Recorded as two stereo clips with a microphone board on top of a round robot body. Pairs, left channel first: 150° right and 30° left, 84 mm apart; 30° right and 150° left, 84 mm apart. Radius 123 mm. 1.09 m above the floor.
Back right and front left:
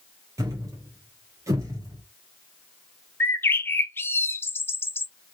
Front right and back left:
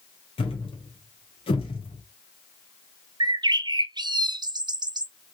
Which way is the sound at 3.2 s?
150° left.